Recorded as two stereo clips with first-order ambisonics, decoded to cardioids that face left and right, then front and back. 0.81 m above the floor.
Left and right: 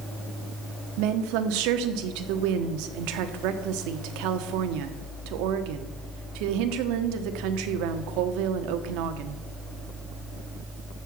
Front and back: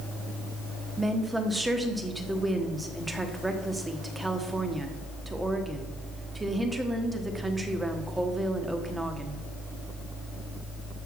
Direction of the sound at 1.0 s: 95° right.